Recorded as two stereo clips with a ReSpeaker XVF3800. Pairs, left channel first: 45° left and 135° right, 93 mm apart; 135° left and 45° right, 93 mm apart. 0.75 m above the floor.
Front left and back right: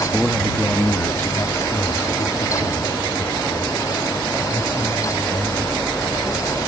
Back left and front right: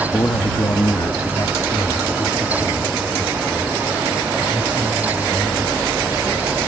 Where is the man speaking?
135° left; by 6.1 s 70° left.